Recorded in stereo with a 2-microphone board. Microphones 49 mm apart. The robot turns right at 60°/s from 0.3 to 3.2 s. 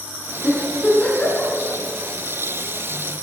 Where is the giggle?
Centre (ahead or behind), 2.5 m; by 1.5 s 65° left (ahead or behind), 2.5 m.